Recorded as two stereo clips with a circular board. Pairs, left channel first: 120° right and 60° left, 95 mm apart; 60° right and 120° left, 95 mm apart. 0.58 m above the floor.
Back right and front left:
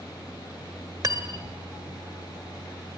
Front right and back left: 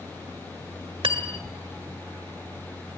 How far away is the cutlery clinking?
About 1.5 m.